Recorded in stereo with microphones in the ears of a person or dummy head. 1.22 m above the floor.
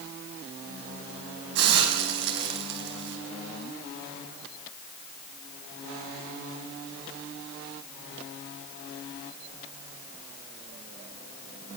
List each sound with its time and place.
1.6 s a hiss: 65° right (ahead or behind), 5 m